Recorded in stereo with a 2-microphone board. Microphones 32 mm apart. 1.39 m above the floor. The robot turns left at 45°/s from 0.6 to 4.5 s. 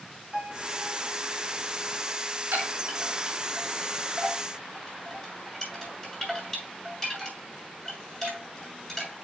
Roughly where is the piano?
Right.